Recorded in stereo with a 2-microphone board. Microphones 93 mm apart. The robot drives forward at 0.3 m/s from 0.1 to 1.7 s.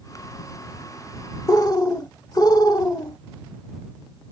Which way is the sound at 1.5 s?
40° left (ahead or behind).